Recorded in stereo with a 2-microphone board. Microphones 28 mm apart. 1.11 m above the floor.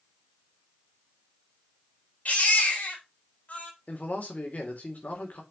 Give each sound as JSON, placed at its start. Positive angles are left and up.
{"t": 2.2, "sound": "a baby crying", "side_deg": 65, "distance_m": 4.0}
{"t": 3.9, "sound": "a man speaking", "side_deg": 65, "distance_m": 3.5}